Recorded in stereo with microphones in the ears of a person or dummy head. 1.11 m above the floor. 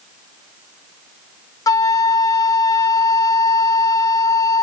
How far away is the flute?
About 0.6 m.